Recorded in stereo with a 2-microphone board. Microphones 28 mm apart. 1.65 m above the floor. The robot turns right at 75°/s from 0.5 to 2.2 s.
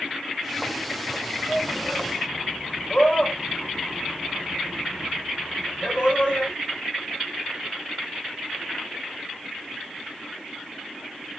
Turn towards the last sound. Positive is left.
turn(degrees=45)  # may be behind; listen again after turning